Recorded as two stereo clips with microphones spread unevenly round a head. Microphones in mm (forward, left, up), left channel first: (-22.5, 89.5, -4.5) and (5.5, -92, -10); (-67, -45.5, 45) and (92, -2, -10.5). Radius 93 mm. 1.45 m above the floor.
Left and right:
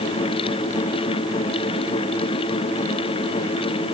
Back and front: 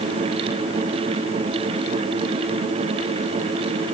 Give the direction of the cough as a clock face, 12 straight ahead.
No cough in this recording.